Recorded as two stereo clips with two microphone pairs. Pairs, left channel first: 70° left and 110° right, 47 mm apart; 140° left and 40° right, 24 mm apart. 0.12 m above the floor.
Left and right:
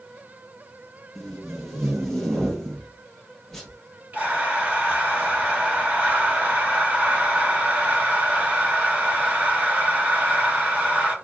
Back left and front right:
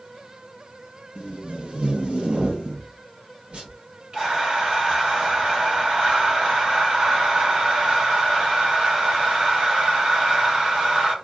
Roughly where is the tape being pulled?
Ahead.